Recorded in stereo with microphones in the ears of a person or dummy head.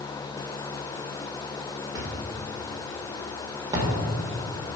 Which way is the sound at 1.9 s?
20° right (ahead or behind).